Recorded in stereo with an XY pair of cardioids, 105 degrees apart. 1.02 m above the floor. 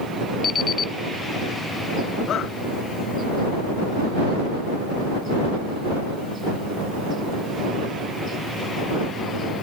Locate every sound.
0.4 s an alarm clock: 40° left
2.3 s a shout: 60° left